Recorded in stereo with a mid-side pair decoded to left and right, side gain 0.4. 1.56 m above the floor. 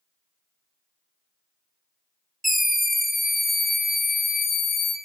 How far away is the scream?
About 1.4 m.